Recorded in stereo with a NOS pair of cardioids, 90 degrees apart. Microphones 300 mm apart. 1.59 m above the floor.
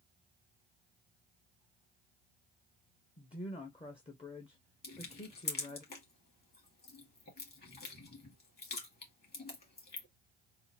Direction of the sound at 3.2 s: 20° left.